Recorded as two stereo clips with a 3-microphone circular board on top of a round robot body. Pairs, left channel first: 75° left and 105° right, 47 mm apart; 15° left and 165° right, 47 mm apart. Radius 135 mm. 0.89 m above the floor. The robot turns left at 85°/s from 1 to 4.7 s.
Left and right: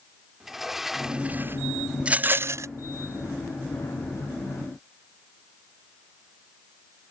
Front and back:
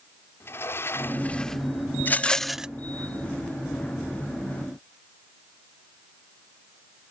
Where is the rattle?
35° right; by 2.7 s 95° right.